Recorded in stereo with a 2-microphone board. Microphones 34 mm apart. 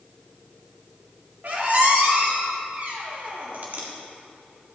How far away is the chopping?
I don't hear chopping.